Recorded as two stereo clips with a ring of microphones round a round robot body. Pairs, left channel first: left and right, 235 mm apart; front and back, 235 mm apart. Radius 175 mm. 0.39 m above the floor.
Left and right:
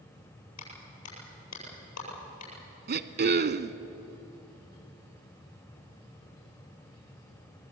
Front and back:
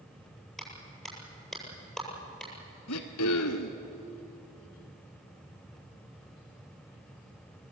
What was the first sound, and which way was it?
A clap, 90° left.